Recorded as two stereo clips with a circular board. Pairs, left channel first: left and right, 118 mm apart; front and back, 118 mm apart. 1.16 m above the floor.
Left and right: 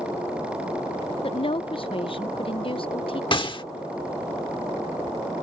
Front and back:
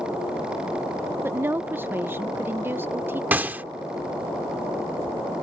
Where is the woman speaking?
115° left.